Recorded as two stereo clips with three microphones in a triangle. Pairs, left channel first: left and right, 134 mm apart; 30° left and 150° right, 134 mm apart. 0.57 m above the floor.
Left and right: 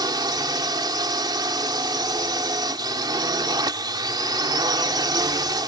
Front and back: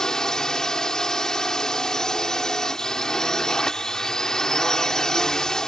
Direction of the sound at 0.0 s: 55° right.